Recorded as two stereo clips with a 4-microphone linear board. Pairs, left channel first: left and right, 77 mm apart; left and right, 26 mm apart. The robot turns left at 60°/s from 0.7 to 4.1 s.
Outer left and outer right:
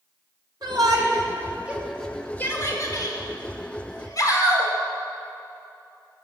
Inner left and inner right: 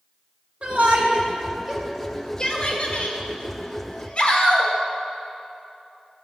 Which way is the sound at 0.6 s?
70° right (ahead or behind).